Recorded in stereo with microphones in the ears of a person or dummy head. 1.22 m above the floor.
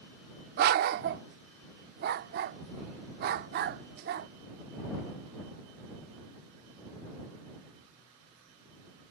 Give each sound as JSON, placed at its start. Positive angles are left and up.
{"t": 0.6, "sound": "a dog barking", "side_deg": -50}